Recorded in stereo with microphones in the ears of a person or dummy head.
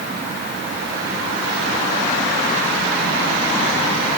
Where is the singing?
I don't hear singing.